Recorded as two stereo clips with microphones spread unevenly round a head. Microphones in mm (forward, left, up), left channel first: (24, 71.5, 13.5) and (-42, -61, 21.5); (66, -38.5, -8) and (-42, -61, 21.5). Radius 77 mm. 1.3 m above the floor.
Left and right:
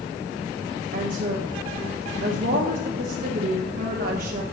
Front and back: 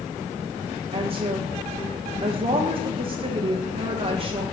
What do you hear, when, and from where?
0.9 s a woman speaking: 130° right, 0.8 m